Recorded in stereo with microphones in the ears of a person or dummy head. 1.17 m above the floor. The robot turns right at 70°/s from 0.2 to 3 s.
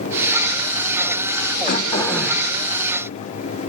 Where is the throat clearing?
140° left, 1.9 m; by 2.5 s 160° right, 1.9 m.